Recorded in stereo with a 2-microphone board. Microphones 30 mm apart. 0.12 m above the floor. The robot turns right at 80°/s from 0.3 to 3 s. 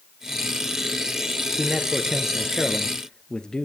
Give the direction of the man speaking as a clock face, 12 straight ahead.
3 o'clock.